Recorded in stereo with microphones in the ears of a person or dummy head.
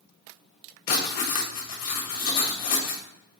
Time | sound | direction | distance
0.9 | writing | 45° left (ahead or behind) | 1.5 m